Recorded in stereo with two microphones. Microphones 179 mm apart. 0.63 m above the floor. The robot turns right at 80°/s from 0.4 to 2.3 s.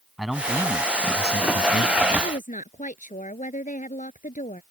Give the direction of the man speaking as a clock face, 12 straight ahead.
12 o'clock.